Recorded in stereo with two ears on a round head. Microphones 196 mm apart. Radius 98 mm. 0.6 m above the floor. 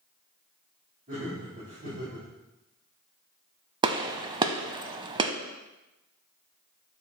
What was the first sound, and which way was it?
Laughter, 40° right (ahead or behind).